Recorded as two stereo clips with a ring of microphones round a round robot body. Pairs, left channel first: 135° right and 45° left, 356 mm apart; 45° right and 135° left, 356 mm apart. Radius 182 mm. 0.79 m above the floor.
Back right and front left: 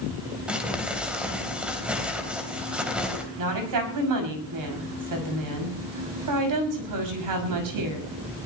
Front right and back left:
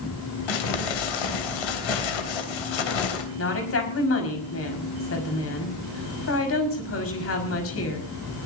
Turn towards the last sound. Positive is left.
turn(degrees=10)